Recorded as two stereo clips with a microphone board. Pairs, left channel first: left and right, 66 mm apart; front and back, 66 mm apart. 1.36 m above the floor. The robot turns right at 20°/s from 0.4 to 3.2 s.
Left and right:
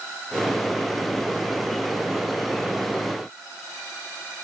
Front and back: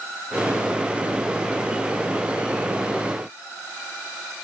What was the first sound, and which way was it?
Only background noise.